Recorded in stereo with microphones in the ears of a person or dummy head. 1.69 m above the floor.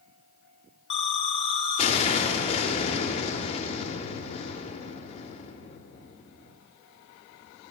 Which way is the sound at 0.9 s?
40° left (ahead or behind).